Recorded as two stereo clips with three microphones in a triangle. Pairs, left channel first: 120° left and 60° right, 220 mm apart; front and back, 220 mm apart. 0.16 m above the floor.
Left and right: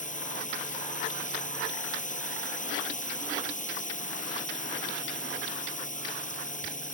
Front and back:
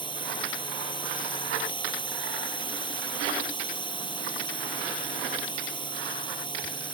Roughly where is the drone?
Ahead left.